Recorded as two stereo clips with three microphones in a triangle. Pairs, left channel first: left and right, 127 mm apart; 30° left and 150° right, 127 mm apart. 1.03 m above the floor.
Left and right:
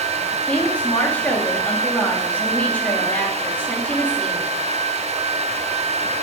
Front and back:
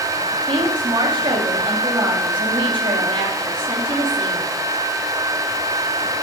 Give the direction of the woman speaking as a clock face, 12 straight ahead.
6 o'clock.